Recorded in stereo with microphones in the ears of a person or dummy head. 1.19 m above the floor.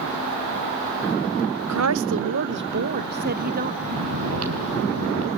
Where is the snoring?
75° right (ahead or behind), 3.5 m.